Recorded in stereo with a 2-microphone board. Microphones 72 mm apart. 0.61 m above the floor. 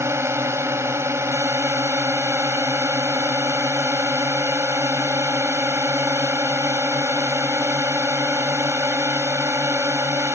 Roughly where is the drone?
Right.